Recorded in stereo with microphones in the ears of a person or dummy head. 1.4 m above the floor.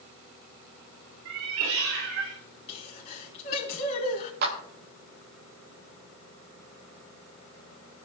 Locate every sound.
1.2 s a cat meowing: 75° right (ahead or behind), 2.5 m; by 2.4 s 80° right, 3 m
2.7 s a sneeze: 35° left (ahead or behind), 3 m
4.4 s a clap: 55° right (ahead or behind), 4 m